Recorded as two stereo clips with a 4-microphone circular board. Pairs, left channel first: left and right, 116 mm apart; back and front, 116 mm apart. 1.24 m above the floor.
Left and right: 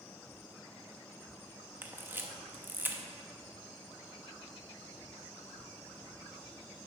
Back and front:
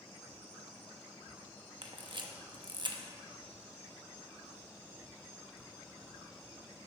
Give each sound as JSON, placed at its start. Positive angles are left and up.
{"t": 1.8, "sound": "a camera shutter", "azimuth_deg": -25, "distance_m": 0.8}